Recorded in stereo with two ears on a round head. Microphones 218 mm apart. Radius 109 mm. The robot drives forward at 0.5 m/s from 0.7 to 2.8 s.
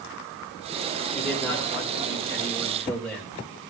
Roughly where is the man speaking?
Centre.